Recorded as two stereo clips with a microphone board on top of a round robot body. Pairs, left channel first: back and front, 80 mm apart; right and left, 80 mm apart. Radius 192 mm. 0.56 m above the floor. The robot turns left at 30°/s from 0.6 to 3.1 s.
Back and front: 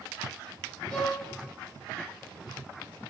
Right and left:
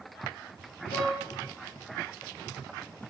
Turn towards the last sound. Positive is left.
turn(degrees=-170)